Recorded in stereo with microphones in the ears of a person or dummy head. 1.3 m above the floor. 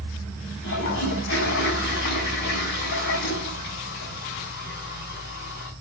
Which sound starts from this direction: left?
A toilet flushing, at 0.6 s.